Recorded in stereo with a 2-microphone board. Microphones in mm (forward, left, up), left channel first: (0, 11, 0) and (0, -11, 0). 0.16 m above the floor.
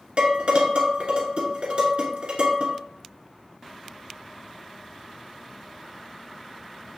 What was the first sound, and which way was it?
Dishes clattering, 50° right (ahead or behind).